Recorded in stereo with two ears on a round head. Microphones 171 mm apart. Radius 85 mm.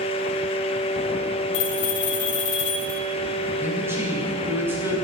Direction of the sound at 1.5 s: 65° left (ahead or behind).